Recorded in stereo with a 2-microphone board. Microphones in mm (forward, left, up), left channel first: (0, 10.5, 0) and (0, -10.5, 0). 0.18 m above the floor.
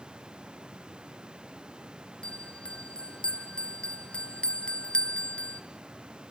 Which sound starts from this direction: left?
A bell, at 2.2 s.